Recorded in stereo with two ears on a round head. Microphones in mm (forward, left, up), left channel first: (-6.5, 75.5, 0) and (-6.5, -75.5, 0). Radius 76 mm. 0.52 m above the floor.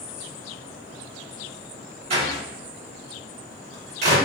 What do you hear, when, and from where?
2.1 s a door slam: 40° right (ahead or behind), 1.2 m